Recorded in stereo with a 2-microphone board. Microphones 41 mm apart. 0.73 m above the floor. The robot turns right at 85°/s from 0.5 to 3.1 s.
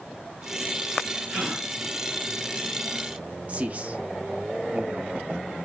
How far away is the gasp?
About 2.5 m.